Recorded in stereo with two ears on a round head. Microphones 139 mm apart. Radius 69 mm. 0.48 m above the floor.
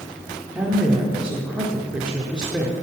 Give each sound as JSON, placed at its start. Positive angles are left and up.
{"t": 0.6, "sound": "a woman speaking", "side_deg": -5, "distance_m": 1.2}